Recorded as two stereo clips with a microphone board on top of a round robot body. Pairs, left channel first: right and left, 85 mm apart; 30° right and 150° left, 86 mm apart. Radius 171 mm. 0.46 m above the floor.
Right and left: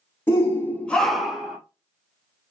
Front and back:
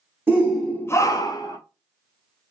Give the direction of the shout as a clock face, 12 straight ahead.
5 o'clock.